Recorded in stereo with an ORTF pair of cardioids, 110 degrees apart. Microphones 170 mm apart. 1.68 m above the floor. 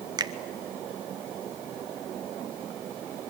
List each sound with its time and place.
0.2 s a finger snap: 25° right, 1.3 m